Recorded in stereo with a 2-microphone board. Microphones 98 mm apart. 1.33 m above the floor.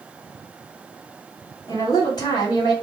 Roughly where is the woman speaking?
Left.